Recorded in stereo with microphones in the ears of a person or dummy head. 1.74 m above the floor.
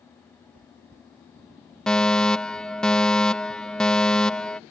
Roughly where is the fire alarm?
Centre.